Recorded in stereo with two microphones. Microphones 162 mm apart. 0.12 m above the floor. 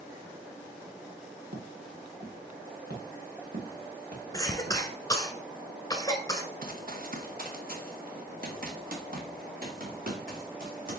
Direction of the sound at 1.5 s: 75° right (ahead or behind).